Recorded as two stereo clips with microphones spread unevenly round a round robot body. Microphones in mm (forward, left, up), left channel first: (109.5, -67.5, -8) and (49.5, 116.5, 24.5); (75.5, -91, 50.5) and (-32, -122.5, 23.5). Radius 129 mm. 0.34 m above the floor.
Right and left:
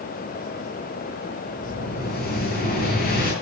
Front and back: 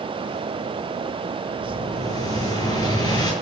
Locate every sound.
1.6 s an explosion: 35° right, 8 m